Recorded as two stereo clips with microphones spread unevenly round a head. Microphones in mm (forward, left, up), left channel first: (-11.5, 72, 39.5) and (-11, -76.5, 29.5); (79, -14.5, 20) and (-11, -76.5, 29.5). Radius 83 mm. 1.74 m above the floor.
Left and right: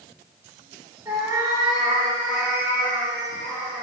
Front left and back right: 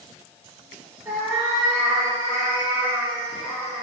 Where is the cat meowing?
150° right, 1.0 m.